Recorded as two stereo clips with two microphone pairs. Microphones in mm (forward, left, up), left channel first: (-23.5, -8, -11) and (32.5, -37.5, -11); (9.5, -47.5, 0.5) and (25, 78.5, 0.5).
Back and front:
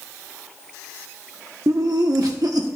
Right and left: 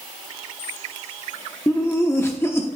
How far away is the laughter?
About 0.8 m.